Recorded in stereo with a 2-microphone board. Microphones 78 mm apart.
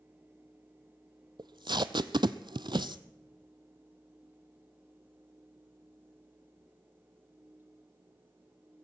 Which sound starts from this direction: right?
Tape being pulled, at 1.4 s.